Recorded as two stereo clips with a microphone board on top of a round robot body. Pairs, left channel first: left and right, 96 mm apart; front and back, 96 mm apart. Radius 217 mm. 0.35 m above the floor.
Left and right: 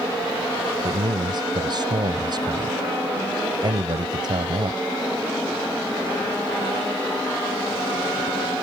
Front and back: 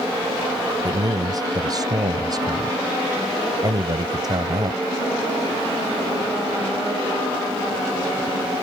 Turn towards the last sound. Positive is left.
turn(degrees=-130)